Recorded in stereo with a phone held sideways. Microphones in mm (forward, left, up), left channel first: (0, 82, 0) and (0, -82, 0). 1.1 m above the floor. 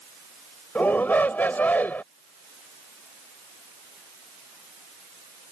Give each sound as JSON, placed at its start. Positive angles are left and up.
{"t": 0.8, "sound": "a shout", "side_deg": 10}